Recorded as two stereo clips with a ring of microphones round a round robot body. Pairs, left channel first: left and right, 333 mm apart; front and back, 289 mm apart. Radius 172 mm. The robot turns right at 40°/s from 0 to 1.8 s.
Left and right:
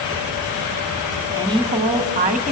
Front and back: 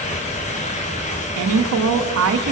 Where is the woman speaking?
170° right, 1.6 m; by 2.5 s 155° right, 1.6 m.